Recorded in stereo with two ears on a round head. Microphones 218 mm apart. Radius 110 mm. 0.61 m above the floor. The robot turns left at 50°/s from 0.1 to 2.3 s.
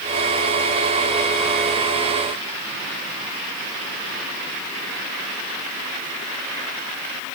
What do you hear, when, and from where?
Only background noise.